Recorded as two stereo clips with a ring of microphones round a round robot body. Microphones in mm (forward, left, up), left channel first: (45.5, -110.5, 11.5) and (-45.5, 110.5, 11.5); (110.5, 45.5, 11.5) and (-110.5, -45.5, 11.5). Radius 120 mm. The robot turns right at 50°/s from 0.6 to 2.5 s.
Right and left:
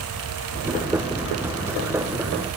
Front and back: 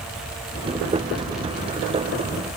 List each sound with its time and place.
Only background noise.